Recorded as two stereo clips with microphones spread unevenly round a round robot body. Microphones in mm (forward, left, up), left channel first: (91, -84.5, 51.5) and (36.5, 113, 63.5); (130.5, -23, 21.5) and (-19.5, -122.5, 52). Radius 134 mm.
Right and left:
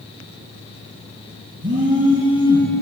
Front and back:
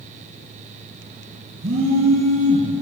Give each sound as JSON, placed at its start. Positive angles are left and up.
{"t": 1.6, "sound": "a phone buzzing", "azimuth_deg": 165, "distance_m": 5.0}